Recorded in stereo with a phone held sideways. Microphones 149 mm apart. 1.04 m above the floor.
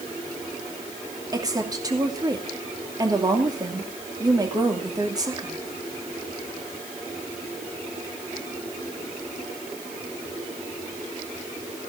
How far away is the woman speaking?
About 2.5 m.